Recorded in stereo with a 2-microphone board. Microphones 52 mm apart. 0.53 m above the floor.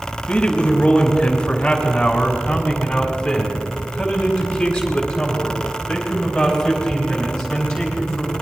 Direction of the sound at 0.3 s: 25° left (ahead or behind).